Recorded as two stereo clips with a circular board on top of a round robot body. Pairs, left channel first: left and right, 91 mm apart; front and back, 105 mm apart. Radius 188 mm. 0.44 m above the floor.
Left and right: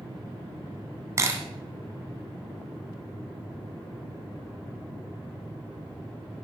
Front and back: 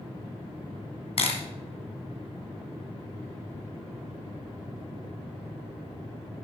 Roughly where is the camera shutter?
Ahead right.